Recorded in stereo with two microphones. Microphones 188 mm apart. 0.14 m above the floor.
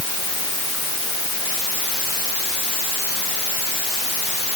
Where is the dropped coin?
No dropped coin in this recording.